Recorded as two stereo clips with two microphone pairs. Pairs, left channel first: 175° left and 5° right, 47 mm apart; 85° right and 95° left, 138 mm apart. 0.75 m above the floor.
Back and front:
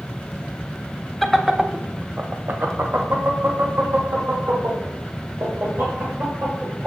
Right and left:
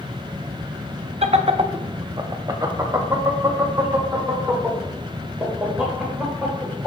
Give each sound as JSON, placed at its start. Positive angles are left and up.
{"t": 1.2, "sound": "laughter", "azimuth_deg": 85, "distance_m": 0.6}